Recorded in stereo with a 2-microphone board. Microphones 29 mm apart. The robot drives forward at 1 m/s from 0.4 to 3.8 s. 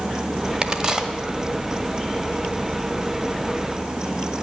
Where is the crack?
35° right (ahead or behind), 0.9 m; by 1.1 s 20° right (ahead or behind), 1.3 m.